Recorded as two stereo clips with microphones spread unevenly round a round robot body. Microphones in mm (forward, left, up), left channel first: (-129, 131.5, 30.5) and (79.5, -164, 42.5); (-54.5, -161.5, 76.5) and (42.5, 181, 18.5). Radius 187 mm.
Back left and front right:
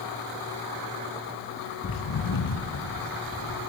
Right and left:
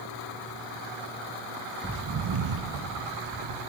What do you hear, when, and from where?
1.8 s footsteps: 170° left, 0.7 m; by 3.7 s 70° left, 2.5 m